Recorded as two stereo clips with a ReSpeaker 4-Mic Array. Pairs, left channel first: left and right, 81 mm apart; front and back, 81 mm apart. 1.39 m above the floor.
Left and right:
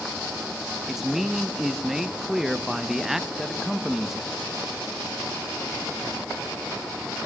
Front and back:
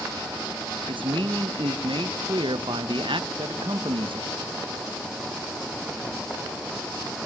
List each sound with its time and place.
0.9 s a man speaking: 175° right, 1.3 m